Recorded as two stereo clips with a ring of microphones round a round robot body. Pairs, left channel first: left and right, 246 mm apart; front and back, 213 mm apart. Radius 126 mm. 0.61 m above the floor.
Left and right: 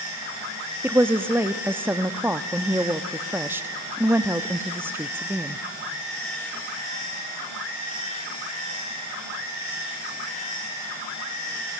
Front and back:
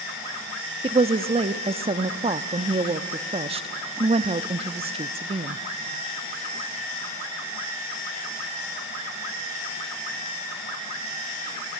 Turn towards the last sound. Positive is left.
turn(degrees=-160)